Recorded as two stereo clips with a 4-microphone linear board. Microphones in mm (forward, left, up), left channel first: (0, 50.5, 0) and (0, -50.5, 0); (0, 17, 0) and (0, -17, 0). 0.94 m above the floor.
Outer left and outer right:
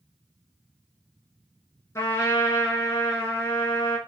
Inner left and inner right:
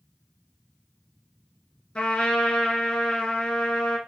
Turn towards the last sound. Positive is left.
turn(degrees=30)  # may be behind; listen again after turning